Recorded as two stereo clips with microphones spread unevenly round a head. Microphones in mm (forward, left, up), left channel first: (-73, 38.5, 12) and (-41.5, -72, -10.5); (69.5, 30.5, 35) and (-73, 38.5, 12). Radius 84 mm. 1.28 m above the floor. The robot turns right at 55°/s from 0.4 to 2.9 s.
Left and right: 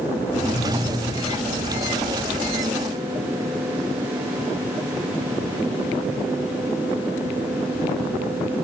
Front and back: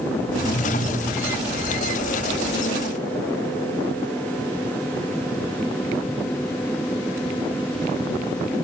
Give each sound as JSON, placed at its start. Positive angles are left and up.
{"t": 0.2, "sound": "a whoosh", "azimuth_deg": 45, "distance_m": 2.5}